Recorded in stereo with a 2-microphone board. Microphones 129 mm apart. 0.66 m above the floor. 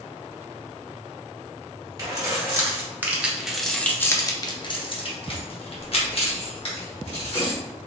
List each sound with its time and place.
2.0 s keys jangling: 30° right (ahead or behind), 1.2 m; by 7.6 s 50° left (ahead or behind), 1.9 m